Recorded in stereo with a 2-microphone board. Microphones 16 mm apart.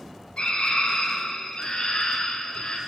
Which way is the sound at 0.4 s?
90° left.